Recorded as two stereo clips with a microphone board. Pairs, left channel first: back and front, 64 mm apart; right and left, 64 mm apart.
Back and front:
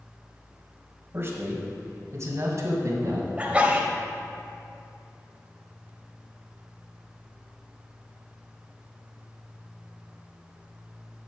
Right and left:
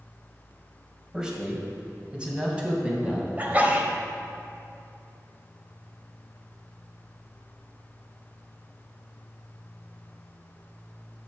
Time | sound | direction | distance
1.1 | a man speaking | 20° left | 1.8 m
3.4 | a sneeze | 50° left | 1.5 m